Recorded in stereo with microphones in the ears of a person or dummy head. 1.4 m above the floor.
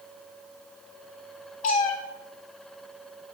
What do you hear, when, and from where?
1.6 s a cat meowing: 30° left (ahead or behind), 0.7 m